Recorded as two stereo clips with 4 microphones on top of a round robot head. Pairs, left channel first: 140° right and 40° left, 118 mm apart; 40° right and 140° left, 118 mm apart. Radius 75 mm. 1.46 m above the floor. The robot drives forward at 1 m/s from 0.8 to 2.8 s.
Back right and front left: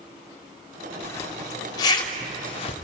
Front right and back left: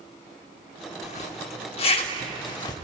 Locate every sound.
1.0 s a zipper: 70° right, 3.5 m; by 2.8 s 100° right, 3 m